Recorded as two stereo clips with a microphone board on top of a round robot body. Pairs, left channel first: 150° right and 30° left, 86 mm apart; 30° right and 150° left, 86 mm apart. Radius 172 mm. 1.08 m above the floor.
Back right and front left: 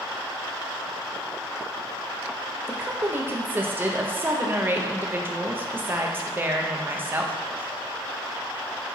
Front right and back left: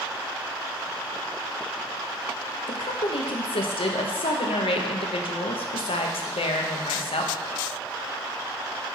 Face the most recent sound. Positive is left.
turn(degrees=-40)